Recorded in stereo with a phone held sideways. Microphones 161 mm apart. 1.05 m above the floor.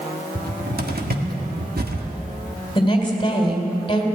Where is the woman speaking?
30° left (ahead or behind), 3.5 m.